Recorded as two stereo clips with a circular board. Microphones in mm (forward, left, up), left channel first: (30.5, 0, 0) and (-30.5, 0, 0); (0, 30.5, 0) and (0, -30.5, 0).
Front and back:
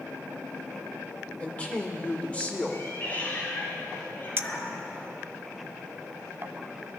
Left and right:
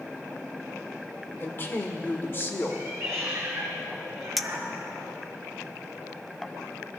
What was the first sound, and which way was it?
A woman speaking, 60° left.